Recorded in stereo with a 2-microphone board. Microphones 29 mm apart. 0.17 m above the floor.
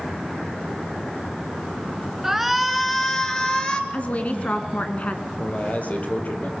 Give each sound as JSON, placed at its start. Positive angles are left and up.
{"t": 2.2, "sound": "a shout", "side_deg": -10, "distance_m": 2.0}
{"t": 3.9, "sound": "a woman speaking", "side_deg": 50, "distance_m": 1.6}
{"t": 5.3, "sound": "a man speaking", "side_deg": 55, "distance_m": 4.0}